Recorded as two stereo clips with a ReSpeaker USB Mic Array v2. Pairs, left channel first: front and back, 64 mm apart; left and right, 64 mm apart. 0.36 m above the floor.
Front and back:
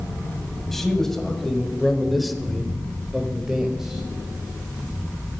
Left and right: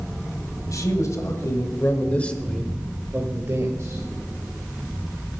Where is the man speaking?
85° left, 1.9 m; by 4.0 s 100° right, 1.6 m.